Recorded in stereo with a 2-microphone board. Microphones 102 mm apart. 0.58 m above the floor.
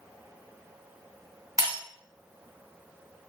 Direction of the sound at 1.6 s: 35° right (ahead or behind).